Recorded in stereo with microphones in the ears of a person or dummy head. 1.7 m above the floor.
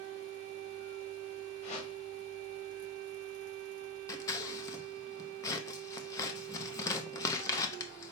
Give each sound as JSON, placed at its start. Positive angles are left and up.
{"t": 1.6, "sound": "a whoosh", "side_deg": 35, "distance_m": 1.2}
{"t": 4.1, "sound": "scissors", "side_deg": 20, "distance_m": 0.6}